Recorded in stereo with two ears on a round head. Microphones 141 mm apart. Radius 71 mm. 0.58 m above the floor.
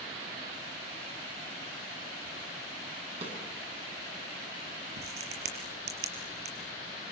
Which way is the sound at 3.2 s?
45° right (ahead or behind).